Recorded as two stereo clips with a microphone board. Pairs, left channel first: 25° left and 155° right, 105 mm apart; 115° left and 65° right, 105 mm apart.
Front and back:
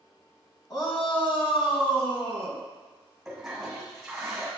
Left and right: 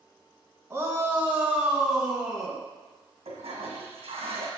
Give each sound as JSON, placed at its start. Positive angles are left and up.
{"t": 0.7, "sound": "a shout", "azimuth_deg": -10, "distance_m": 1.9}
{"t": 3.2, "sound": "a toilet flushing", "azimuth_deg": -70, "distance_m": 1.9}